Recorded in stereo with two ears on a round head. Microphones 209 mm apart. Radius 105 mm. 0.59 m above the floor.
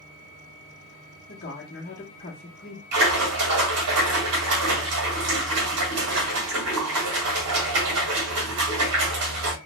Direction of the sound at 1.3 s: 40° left (ahead or behind).